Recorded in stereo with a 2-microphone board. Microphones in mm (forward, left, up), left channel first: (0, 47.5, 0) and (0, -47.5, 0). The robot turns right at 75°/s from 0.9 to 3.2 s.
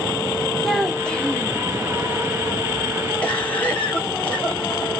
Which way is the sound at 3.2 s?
15° left (ahead or behind).